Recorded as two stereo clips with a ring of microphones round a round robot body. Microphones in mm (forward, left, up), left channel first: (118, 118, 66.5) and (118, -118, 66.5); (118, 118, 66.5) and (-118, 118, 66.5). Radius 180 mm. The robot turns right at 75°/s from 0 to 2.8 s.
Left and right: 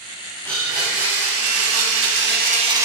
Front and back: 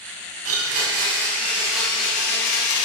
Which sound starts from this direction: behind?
A blender, at 0.5 s.